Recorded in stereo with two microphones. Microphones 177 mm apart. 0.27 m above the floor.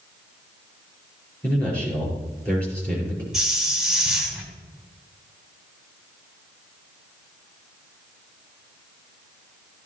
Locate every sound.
1.4 s a man speaking: 5° left (ahead or behind), 4.5 m
3.3 s a hiss: 5° right (ahead or behind), 2.0 m